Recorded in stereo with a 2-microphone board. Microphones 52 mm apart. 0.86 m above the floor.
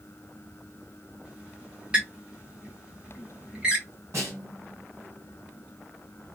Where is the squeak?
20° right (ahead or behind), 1.1 m.